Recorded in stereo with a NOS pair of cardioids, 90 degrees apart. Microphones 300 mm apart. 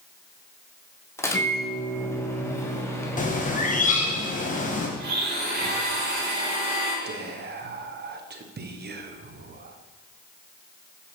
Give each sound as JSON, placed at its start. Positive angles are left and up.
{"t": 1.2, "sound": "a microwave", "azimuth_deg": 10, "distance_m": 1.4}
{"t": 3.2, "sound": "a bird", "azimuth_deg": 25, "distance_m": 1.6}
{"t": 5.0, "sound": "a blender", "azimuth_deg": -30, "distance_m": 3.5}
{"t": 7.0, "sound": "whispering", "azimuth_deg": -35, "distance_m": 1.2}